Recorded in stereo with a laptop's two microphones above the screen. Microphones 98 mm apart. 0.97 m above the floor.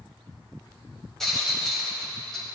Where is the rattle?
5° left (ahead or behind), 1.7 m.